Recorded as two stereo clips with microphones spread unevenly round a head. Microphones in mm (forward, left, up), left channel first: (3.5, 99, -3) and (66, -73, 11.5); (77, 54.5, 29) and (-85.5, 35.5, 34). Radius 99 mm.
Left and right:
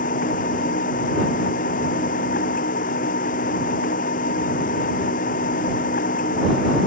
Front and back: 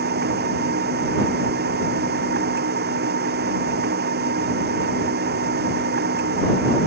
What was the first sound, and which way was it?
A machine running, 165° left.